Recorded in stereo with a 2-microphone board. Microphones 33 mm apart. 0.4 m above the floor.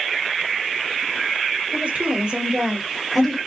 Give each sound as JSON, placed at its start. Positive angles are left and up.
{"t": 1.7, "sound": "a woman speaking", "side_deg": -50, "distance_m": 1.7}